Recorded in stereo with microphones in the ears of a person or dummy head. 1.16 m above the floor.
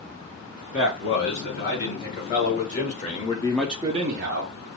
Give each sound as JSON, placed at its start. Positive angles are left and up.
{"t": 0.7, "sound": "a man speaking", "side_deg": 45, "distance_m": 3.5}